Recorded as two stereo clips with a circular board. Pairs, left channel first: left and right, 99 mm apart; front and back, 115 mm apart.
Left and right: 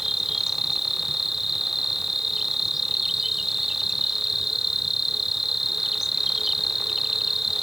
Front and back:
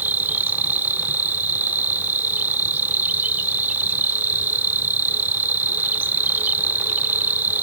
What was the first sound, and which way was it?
An insect, 170° right.